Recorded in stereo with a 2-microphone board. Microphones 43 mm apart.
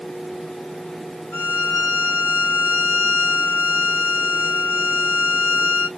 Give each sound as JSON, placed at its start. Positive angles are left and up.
{"t": 1.3, "sound": "a violin", "side_deg": 50, "distance_m": 1.9}